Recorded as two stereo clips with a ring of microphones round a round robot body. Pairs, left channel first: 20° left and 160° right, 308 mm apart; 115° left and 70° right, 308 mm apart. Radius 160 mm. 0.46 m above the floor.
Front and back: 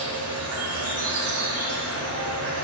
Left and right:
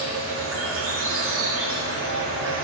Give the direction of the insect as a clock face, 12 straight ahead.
4 o'clock.